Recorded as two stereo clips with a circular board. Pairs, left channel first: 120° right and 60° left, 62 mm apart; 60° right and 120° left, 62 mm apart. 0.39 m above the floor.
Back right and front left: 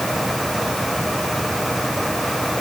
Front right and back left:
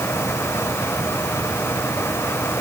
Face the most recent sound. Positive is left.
No sound to turn to.